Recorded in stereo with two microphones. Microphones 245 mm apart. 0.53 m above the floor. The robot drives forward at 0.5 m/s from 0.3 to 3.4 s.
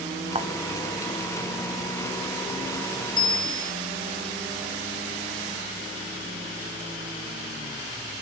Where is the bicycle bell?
20° left (ahead or behind), 2 m.